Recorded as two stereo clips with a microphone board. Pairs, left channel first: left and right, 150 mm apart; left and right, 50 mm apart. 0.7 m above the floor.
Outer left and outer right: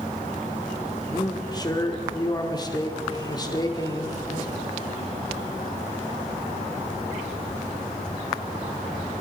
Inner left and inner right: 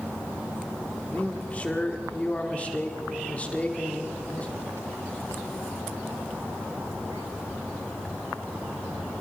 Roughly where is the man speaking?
Left.